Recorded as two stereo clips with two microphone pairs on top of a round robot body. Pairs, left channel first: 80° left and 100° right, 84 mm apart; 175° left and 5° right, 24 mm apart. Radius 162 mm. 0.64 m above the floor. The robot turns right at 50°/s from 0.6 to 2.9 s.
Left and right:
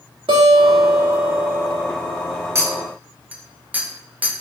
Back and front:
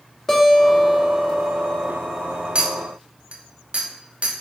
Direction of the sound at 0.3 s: 105° right.